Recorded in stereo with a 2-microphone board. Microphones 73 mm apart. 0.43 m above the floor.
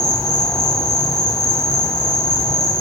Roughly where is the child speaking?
No child speaking in this recording.